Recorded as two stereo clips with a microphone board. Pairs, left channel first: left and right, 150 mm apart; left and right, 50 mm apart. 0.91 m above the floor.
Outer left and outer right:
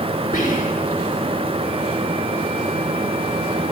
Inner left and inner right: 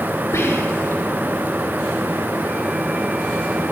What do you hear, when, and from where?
0.3 s whispering: 70° left (ahead or behind), 3.5 m